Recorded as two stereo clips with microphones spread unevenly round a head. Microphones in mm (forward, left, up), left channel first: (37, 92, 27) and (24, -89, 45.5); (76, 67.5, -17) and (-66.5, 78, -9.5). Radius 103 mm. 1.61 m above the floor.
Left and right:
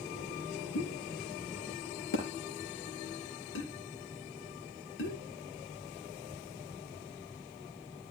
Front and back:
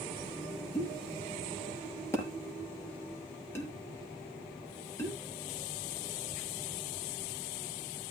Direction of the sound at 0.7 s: 70° left.